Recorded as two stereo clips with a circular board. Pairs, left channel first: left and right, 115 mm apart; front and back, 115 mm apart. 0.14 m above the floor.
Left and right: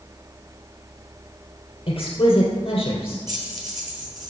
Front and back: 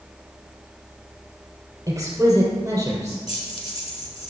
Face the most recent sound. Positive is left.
turn(degrees=-35)